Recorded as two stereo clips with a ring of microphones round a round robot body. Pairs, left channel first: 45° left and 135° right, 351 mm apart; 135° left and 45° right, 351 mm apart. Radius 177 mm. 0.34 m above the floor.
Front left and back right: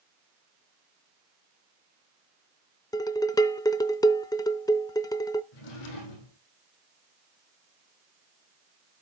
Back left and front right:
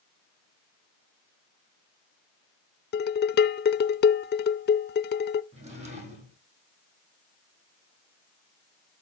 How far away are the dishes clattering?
About 0.5 m.